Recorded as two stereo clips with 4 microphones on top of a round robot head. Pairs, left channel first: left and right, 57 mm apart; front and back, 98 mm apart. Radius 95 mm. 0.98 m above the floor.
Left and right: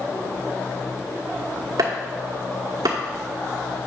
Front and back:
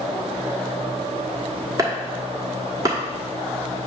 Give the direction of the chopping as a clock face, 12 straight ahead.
4 o'clock.